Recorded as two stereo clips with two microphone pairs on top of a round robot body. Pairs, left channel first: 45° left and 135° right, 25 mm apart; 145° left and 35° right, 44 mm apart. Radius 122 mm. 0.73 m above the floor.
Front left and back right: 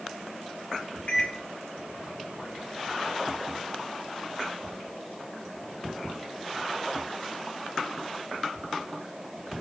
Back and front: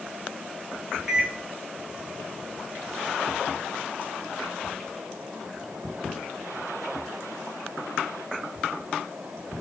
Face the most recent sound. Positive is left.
turn(degrees=50)